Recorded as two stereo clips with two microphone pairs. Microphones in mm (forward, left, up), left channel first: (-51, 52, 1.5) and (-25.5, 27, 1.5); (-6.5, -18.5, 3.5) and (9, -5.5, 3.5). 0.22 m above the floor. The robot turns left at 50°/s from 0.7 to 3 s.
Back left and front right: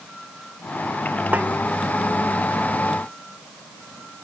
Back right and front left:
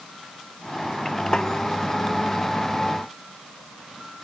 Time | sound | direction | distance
1.3 | a snare drum | 85° right | ?